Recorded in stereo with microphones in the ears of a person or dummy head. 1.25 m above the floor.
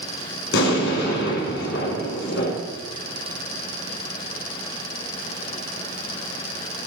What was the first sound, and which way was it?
An explosion, 65° left (ahead or behind).